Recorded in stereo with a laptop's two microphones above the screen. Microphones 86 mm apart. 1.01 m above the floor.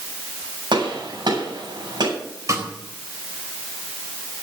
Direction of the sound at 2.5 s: 40° right (ahead or behind).